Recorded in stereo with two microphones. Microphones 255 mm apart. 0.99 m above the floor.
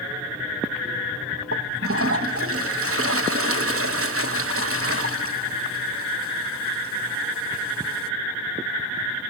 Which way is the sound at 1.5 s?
60° right (ahead or behind).